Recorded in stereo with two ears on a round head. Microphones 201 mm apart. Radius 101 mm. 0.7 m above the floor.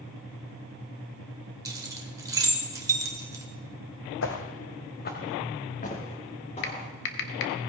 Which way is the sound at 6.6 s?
55° left (ahead or behind).